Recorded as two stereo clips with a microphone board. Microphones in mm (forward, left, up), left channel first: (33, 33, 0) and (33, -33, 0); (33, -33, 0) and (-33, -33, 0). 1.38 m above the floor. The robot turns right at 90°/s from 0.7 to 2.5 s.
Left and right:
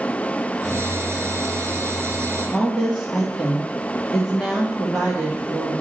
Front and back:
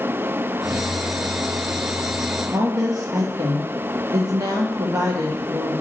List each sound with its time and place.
2.5 s a woman speaking: 175° right, 2 m